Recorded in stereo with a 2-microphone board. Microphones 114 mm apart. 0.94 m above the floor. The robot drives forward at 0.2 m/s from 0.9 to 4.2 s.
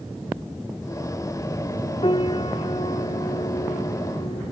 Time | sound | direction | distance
2.0 | a piano | 60° left (ahead or behind) | ?